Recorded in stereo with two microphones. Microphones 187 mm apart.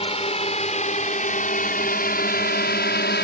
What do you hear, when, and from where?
0.0 s a drone: 30° left (ahead or behind); by 3.2 s 65° left (ahead or behind)